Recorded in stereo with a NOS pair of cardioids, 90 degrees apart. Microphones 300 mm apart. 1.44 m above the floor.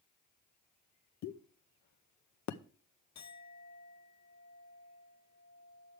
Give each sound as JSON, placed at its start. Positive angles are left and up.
{"t": 1.2, "sound": "a pop", "azimuth_deg": 65, "distance_m": 0.9}
{"t": 3.1, "sound": "a clink", "azimuth_deg": 60, "distance_m": 1.9}